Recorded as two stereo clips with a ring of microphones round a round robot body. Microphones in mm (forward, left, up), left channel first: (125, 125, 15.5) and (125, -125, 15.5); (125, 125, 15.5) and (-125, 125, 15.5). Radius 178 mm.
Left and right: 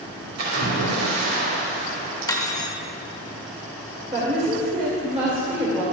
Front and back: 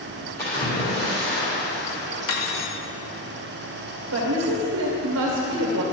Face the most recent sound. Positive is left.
turn(degrees=-155)